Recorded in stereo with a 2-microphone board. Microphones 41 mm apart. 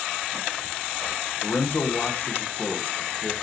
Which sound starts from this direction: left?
A man speaking, at 1.4 s.